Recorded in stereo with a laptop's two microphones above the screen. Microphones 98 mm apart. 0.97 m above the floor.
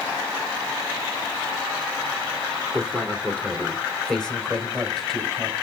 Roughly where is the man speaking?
Centre.